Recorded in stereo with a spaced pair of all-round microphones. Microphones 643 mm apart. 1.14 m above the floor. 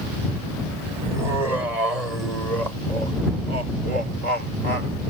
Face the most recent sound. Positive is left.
turn(degrees=-65)  # may be behind; listen again after turning